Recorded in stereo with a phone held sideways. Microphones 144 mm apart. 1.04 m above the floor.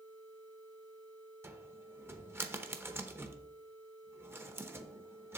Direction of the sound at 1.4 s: 15° right (ahead or behind).